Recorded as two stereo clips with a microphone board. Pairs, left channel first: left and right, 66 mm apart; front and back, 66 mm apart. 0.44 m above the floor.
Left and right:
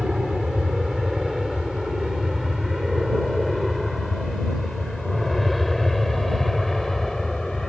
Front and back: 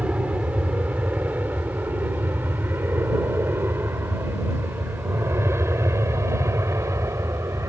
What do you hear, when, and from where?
0.0 s an aircraft: 160° right; by 7.7 s 175° left